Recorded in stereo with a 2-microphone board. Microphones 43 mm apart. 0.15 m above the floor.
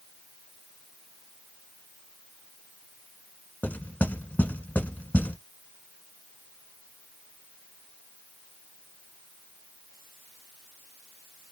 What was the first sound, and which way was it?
Knocking, 40° left (ahead or behind).